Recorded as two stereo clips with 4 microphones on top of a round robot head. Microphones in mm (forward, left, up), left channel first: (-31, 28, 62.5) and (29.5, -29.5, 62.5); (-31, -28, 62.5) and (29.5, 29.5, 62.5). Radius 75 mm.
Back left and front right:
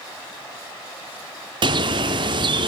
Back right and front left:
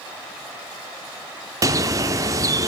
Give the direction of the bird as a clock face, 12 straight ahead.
12 o'clock.